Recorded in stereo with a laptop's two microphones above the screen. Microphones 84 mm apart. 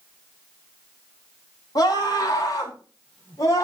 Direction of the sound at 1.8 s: 45° left (ahead or behind).